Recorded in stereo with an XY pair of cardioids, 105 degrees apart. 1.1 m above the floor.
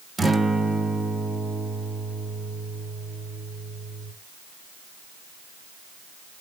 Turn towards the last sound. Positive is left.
turn(degrees=-25)